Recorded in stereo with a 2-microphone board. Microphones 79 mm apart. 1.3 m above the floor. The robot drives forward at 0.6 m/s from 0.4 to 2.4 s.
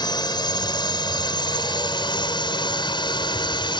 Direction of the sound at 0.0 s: 65° left (ahead or behind).